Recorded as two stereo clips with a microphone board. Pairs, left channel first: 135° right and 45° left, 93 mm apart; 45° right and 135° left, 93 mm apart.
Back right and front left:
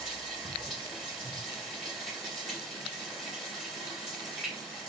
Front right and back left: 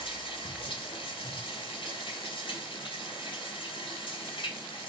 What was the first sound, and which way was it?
Running water, 50° right.